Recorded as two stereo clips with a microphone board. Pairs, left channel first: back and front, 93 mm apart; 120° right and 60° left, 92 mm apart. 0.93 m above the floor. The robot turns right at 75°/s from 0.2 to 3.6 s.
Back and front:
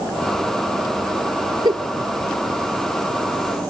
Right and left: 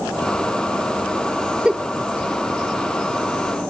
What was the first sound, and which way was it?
A giggle, 20° right.